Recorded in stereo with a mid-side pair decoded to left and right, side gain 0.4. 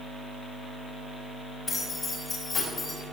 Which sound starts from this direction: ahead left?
Keys jangling, at 1.7 s.